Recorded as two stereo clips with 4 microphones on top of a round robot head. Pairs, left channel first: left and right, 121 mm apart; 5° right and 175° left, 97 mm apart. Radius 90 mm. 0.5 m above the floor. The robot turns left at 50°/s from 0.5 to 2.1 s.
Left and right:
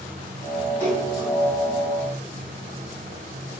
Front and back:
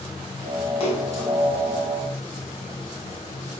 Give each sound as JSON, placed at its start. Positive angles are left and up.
{"t": 0.8, "sound": "a splash", "azimuth_deg": 15, "distance_m": 3.5}